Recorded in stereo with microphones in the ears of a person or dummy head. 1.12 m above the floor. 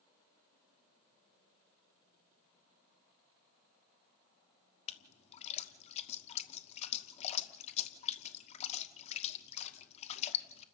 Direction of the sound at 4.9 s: 40° left (ahead or behind).